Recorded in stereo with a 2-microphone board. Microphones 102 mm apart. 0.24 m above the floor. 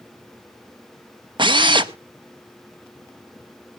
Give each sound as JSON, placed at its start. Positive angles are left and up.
{"t": 1.4, "sound": "a drill", "side_deg": -50, "distance_m": 0.6}